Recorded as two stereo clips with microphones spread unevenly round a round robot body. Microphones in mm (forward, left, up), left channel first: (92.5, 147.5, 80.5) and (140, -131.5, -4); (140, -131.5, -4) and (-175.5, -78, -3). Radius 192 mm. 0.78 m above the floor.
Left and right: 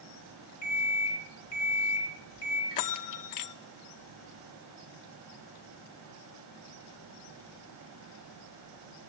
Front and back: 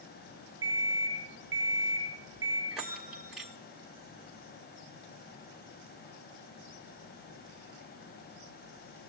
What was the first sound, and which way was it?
An alarm clock, 110° left.